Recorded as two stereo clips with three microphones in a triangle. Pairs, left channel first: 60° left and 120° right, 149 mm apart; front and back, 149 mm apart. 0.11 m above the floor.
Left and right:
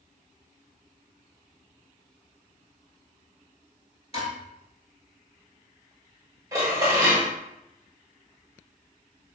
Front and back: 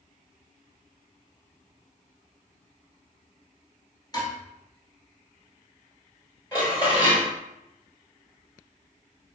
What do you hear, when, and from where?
4.1 s dishes clattering: 50° left, 1.1 m
6.5 s dishes clattering: 60° right, 1.3 m